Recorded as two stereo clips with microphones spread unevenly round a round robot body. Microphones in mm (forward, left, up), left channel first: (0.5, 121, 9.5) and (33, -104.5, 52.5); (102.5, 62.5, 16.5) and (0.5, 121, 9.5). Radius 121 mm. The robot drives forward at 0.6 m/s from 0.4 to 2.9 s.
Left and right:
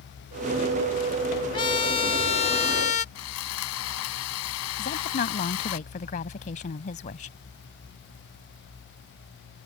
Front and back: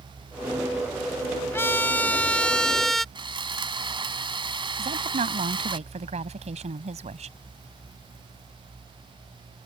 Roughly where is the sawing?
Left.